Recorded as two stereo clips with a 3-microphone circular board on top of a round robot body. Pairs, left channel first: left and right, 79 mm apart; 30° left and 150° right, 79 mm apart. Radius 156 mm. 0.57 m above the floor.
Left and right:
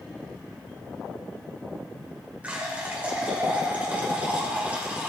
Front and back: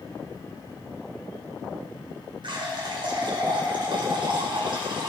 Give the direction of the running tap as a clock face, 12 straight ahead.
5 o'clock.